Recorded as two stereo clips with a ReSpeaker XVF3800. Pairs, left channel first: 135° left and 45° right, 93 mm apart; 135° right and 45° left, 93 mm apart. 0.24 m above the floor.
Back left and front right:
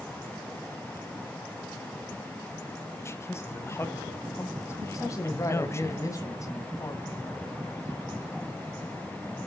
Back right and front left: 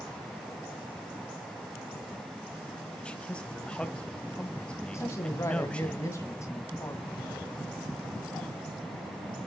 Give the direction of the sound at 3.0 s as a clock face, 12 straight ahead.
7 o'clock.